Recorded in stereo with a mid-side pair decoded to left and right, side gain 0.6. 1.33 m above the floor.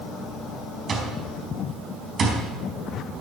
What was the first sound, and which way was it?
An alarm clock, 45° right.